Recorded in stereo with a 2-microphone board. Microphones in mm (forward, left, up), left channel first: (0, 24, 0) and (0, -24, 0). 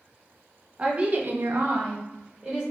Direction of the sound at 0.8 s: 20° right (ahead or behind).